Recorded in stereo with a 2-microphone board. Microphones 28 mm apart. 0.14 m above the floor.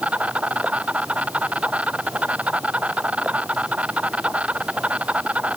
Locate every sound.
0.0 s an insect: 55° right (ahead or behind)